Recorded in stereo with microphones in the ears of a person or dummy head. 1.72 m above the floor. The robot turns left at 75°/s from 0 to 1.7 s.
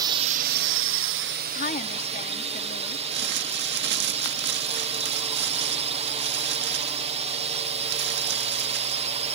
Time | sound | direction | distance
0.0 | a drone | 20° right | ?
1.6 | a woman speaking | 50° left (ahead or behind) | ?
3.1 | crumpling | 55° right (ahead or behind) | ?